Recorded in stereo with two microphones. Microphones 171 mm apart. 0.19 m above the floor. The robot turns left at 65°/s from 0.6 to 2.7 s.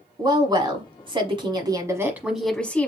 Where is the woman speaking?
60° right, 1.1 m; by 2.9 s 165° left, 1.1 m.